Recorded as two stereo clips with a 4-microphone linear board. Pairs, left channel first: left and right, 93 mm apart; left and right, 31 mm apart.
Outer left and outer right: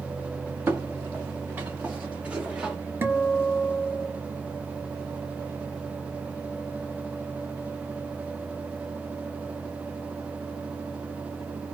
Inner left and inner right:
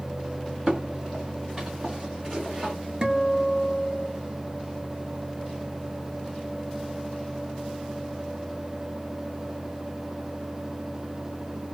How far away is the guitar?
About 0.8 m.